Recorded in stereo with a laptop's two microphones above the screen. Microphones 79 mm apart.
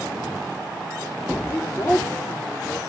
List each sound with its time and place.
1.5 s a woman speaking: 30° left (ahead or behind), 3 m; by 2.8 s 55° left (ahead or behind), 2.5 m